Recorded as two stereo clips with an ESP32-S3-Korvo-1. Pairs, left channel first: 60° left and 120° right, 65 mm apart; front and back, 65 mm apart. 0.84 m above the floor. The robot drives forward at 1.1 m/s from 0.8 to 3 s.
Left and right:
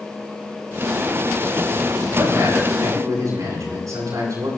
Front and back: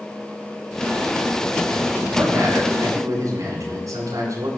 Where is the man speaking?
145° right, 7.5 m; by 4.5 s 150° right, 8.5 m.